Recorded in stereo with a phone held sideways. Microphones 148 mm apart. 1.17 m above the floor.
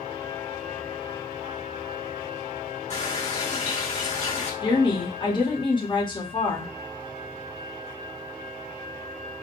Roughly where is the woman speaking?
Left.